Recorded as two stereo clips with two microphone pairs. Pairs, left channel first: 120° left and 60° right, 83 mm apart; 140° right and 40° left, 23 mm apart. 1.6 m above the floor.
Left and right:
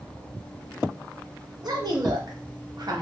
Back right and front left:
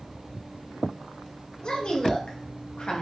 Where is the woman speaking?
95° right, 1.3 m.